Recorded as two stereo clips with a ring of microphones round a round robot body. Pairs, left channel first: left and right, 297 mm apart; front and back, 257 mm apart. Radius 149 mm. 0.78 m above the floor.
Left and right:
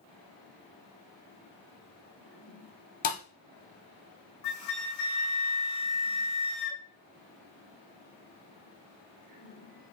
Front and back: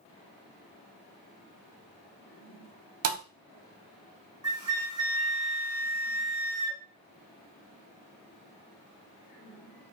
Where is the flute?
105° left, 1.3 m.